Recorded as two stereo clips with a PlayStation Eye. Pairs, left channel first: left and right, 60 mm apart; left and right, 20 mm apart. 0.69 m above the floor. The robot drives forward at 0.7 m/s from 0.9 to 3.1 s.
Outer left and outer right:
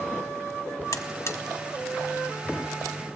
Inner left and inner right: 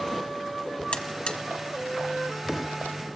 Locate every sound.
0.9 s a buzzer: 60° left (ahead or behind), 0.9 m; by 1.4 s 50° left (ahead or behind), 1.0 m